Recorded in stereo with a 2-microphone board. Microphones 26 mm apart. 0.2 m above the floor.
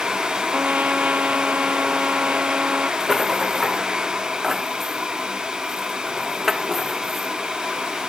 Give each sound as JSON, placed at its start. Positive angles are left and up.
{"t": 0.5, "sound": "a trumpet", "side_deg": -70}
{"t": 3.0, "sound": "a rattle", "side_deg": -10}